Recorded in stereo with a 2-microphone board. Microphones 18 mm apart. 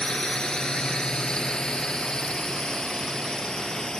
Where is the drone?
50° left (ahead or behind); by 4.0 s 45° left (ahead or behind).